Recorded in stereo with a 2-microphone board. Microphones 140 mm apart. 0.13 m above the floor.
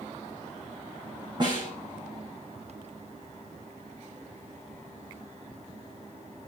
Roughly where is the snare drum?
Right.